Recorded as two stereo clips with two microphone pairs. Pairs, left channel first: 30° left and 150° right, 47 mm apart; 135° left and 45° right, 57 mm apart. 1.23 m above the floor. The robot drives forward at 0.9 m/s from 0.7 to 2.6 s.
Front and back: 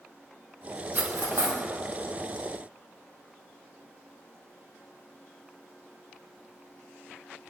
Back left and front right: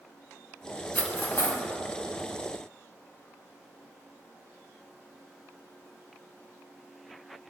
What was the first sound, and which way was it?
Cutlery clinking, straight behind.